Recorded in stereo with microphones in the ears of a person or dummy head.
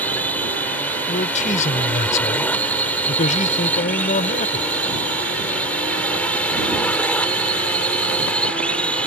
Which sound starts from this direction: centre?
A drone, at 0.0 s.